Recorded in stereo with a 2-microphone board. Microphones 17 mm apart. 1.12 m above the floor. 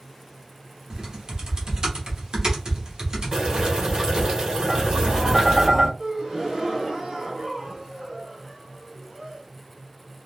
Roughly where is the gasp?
Right.